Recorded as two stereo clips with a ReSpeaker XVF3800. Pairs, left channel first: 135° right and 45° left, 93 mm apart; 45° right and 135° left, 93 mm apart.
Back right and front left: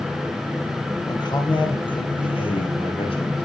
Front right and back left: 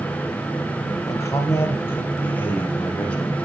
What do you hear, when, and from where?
1.1 s a man speaking: 95° right, 3 m; by 3.4 s 120° right, 5.5 m